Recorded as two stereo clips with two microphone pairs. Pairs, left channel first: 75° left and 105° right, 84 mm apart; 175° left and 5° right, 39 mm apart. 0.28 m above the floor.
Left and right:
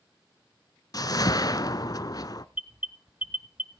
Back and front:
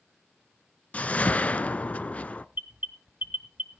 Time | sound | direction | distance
0.9 | a whoosh | 120° left | 0.6 m
2.5 | an alarm | 35° right | 1.0 m